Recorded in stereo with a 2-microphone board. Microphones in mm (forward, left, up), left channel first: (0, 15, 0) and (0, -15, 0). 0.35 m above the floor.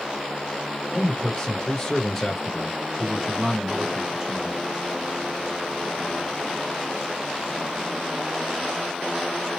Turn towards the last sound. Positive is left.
turn(degrees=-25)  # may be behind; listen again after turning